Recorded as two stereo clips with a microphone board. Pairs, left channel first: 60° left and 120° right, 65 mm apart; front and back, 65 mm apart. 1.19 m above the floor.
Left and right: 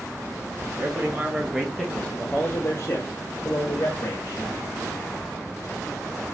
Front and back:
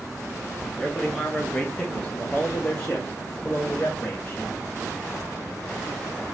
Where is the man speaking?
85° right, 0.9 m; by 4.6 s 70° left, 1.5 m.